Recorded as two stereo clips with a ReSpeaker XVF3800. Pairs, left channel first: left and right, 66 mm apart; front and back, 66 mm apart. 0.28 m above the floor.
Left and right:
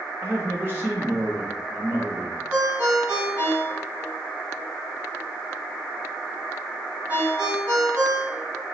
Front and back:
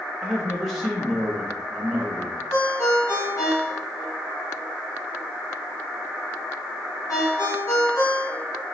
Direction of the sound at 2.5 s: 25° right.